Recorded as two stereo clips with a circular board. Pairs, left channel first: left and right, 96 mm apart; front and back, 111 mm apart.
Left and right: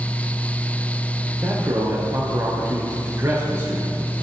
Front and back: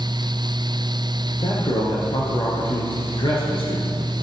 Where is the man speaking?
30° right, 3.5 m.